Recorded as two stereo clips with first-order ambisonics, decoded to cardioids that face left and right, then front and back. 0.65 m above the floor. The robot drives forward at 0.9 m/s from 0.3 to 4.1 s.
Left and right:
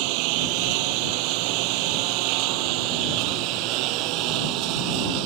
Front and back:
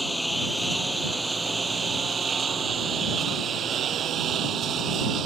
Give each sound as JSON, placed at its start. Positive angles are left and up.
{"t": 0.0, "sound": "a lawn mower", "azimuth_deg": -90}